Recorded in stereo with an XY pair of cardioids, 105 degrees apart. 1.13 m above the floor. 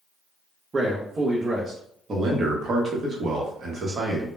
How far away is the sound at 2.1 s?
About 0.8 m.